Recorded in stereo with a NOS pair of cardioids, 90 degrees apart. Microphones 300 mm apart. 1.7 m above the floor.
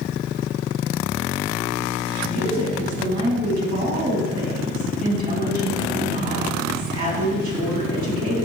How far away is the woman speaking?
About 4 m.